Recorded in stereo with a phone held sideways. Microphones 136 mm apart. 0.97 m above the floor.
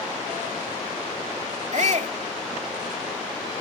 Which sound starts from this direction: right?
A shout, at 1.7 s.